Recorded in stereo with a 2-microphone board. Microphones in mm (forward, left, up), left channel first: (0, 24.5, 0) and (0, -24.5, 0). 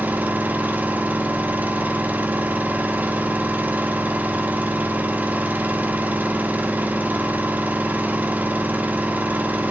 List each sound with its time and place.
0.0 s an engine running: 35° right (ahead or behind), 1.9 m